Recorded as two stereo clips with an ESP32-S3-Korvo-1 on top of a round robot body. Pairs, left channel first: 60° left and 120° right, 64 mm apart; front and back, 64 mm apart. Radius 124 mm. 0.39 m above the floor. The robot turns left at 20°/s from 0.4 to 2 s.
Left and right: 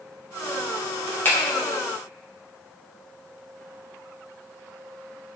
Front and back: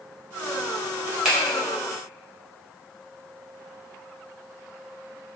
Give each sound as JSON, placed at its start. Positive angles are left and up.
{"t": 1.2, "sound": "a finger snap", "azimuth_deg": 100, "distance_m": 1.4}